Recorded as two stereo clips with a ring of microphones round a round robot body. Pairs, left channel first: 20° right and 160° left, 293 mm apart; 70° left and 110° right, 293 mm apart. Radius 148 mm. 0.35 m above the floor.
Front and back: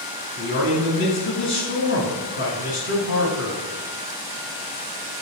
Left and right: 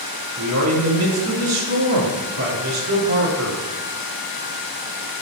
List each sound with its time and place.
0.4 s a man speaking: 70° right, 3 m